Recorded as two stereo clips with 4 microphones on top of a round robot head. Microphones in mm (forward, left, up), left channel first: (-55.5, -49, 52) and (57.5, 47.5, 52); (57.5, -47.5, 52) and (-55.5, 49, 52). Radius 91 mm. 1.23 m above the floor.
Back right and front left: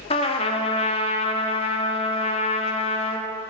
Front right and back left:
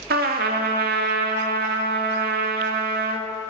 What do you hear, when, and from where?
0.1 s a trumpet: 165° left, 1.4 m